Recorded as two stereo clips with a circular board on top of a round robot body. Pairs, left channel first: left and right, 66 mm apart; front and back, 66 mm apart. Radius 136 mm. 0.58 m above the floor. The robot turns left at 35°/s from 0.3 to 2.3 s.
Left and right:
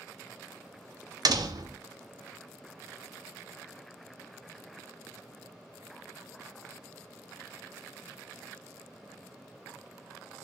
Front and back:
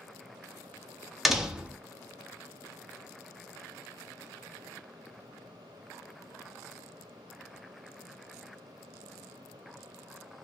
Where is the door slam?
90° right, 0.7 m; by 1.8 s 110° right, 0.7 m.